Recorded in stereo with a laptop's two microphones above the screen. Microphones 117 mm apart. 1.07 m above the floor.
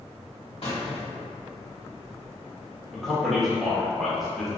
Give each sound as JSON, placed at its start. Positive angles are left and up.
{"t": 0.6, "sound": "a squeak", "side_deg": 60, "distance_m": 1.3}
{"t": 2.9, "sound": "a man speaking", "side_deg": 0, "distance_m": 0.6}